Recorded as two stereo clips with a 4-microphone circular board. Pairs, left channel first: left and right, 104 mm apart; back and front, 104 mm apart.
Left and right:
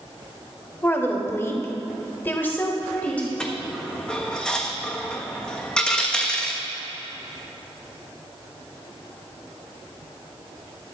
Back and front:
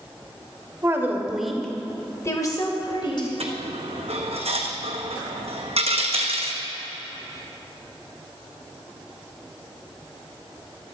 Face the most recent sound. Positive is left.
turn(degrees=10)